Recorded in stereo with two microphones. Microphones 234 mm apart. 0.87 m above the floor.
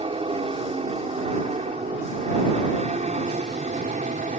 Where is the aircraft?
25° right (ahead or behind); by 4.4 s 35° right (ahead or behind).